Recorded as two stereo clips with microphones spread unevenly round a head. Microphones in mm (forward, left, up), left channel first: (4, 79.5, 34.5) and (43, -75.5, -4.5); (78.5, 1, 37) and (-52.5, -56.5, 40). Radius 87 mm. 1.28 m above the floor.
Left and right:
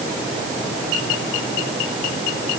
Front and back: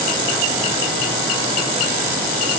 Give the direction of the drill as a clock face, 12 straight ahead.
I don't hear a drill.